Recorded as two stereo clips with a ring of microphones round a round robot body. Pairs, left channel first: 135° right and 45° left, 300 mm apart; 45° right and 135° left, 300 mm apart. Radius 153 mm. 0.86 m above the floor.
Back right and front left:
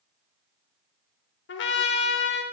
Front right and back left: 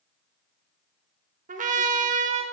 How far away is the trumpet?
About 0.6 m.